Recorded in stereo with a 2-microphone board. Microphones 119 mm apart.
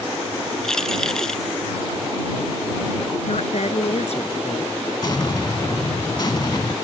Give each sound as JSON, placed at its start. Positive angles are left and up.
{"t": 0.6, "sound": "keys jangling", "side_deg": 5}
{"t": 3.3, "sound": "a woman speaking", "side_deg": 65}
{"t": 5.0, "sound": "an explosion", "side_deg": 35}